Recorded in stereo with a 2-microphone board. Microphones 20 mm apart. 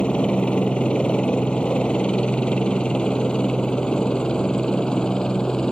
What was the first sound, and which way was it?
A helicopter, 70° left (ahead or behind).